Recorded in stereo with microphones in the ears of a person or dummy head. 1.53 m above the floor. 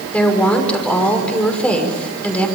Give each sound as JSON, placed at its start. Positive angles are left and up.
{"t": 0.1, "sound": "a woman speaking", "side_deg": 5, "distance_m": 6.0}